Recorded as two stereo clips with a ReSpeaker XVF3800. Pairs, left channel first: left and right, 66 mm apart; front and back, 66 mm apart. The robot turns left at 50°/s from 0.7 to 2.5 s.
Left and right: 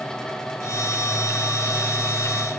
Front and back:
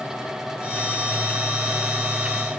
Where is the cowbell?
No cowbell in this recording.